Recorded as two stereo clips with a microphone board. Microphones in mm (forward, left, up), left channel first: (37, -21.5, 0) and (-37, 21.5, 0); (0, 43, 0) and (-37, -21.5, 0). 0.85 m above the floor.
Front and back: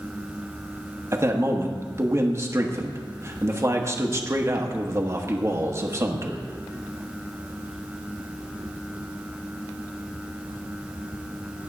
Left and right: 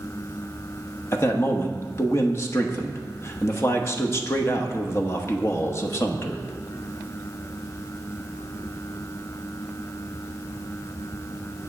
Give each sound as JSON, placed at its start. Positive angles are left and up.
{"t": 1.1, "sound": "a man speaking", "azimuth_deg": 105, "distance_m": 1.1}